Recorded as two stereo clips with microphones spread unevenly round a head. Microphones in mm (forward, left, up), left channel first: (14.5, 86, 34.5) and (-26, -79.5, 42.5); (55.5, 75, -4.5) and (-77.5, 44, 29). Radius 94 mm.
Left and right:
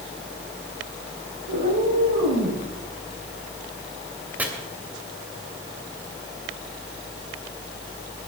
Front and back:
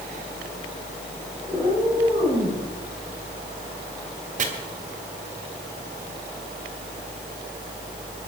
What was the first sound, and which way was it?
A cat meowing, 85° right.